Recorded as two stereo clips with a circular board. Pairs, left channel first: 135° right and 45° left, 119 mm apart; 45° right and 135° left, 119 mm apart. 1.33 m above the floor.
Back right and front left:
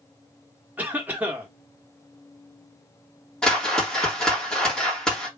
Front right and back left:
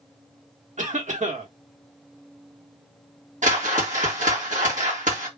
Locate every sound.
0.8 s a cough: 120° left, 1.5 m
3.4 s a whoosh: 140° left, 1.5 m